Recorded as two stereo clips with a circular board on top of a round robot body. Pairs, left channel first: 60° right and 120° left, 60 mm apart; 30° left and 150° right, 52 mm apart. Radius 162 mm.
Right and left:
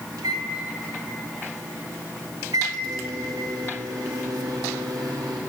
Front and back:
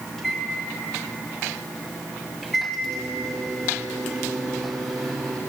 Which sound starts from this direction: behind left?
A microwave, at 0.2 s.